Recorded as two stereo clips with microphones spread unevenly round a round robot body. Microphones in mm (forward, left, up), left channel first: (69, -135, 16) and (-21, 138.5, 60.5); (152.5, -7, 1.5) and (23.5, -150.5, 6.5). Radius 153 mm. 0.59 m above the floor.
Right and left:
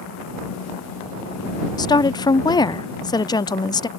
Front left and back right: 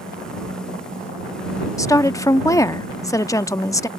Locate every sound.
1.8 s a woman speaking: 15° right